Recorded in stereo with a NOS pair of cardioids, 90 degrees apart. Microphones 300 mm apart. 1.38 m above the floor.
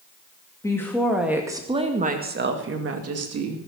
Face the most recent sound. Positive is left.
turn(degrees=-60)